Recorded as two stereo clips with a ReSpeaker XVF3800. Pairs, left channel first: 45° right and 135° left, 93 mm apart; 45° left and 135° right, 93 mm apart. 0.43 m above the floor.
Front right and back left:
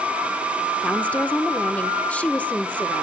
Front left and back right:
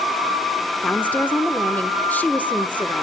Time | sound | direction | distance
0.8 | a woman speaking | 5° left | 1.1 m